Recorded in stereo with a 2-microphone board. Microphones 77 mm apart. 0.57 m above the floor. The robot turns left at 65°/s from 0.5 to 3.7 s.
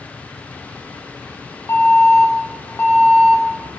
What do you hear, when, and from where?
1.7 s an alarm: 120° left, 2.0 m; by 3.8 s 10° right, 2.0 m